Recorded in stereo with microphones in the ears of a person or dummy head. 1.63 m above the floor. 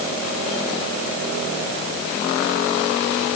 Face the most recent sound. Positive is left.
No sound to turn to.